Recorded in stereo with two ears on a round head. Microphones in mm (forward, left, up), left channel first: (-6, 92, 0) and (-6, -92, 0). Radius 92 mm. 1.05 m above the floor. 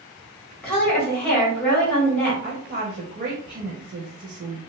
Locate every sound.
0.6 s a woman speaking: 10° left (ahead or behind), 1.4 m
2.4 s a woman speaking: 40° right (ahead or behind), 0.6 m